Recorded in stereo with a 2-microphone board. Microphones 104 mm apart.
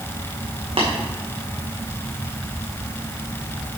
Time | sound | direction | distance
0.8 | tapping | 65° right (ahead or behind) | 2.5 m